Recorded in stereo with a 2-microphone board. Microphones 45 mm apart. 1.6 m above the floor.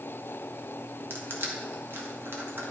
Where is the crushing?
65° right (ahead or behind), 1.4 m.